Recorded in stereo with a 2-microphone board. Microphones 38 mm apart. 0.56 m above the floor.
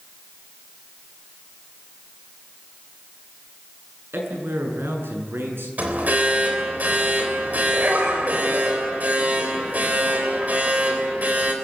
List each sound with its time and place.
4.1 s a man speaking: 80° right, 7 m; by 5.7 s 85° right, 7.5 m
5.8 s an alarm: 45° right (ahead or behind), 3.5 m